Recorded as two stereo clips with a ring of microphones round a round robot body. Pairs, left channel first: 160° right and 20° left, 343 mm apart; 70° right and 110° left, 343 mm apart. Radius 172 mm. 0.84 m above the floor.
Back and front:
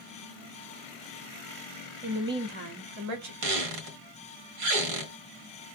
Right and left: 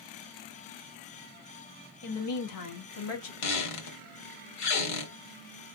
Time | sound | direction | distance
2.0 | a woman speaking | 65° right | 1.3 m
3.4 | a squeak | 20° right | 1.4 m